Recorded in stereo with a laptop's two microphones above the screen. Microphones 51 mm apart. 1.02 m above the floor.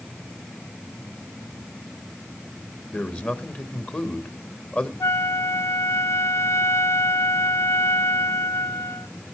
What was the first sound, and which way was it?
A man speaking, 35° left (ahead or behind).